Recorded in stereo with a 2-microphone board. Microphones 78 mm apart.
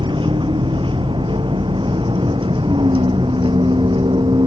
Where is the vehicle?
85° right; by 4.5 s 75° right (ahead or behind).